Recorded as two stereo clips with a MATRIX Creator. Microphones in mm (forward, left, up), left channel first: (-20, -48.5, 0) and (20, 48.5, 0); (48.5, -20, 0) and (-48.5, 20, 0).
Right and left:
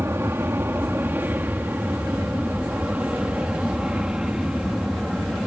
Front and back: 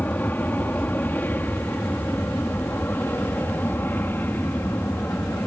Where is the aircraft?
30° left; by 5.5 s 10° right.